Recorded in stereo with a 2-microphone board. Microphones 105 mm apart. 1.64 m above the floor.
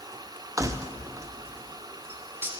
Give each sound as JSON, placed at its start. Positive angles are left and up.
{"t": 0.6, "sound": "keys jangling", "side_deg": -30, "distance_m": 0.5}